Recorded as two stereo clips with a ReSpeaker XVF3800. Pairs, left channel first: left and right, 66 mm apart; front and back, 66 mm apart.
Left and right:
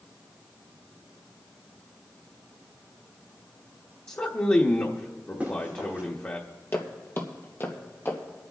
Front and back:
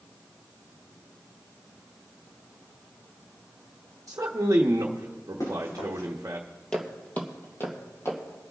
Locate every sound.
4.1 s a man speaking: 145° left, 0.9 m
5.4 s running footsteps: 25° right, 5 m
6.7 s footsteps: 65° left, 1.7 m; by 8.2 s 40° left, 3 m